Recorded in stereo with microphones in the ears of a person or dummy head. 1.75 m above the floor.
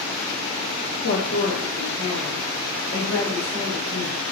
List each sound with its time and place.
1.0 s a woman speaking: 80° left, 0.7 m; by 4.2 s 45° left (ahead or behind), 2.5 m